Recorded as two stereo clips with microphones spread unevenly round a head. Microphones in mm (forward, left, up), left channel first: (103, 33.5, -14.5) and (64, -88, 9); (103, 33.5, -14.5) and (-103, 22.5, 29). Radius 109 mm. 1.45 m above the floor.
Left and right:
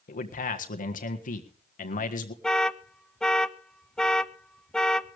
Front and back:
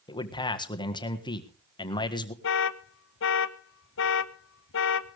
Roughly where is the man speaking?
Left.